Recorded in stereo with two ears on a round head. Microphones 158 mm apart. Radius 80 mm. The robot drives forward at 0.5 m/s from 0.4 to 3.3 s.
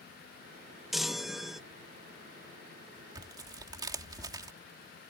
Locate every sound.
0.9 s a chime: centre (ahead or behind)
3.1 s tearing paper: 25° right (ahead or behind)